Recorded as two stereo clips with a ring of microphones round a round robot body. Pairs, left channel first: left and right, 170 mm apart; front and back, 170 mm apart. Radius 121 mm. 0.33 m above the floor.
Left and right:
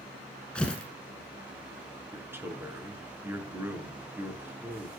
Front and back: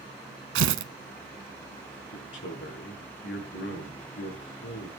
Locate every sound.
0.6 s tearing paper: 175° left, 1.0 m
2.1 s a man speaking: 15° right, 5.5 m